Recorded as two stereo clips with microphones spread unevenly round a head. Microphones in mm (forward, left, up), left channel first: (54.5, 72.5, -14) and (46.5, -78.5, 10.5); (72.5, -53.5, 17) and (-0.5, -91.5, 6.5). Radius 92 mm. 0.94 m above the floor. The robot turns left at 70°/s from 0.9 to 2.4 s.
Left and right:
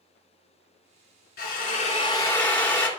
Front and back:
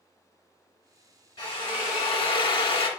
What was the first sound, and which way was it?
A drill, 80° left.